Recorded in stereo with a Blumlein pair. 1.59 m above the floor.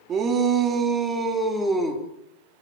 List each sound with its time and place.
0.1 s a shout: 25° right, 4.5 m; by 2.0 s straight ahead, 5 m